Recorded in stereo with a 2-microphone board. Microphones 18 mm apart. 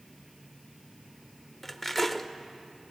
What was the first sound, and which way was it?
Cutlery clinking, 10° left (ahead or behind).